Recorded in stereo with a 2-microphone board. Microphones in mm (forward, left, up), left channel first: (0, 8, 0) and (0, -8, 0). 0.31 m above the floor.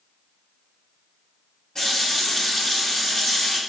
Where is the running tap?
40° left (ahead or behind), 1.2 m.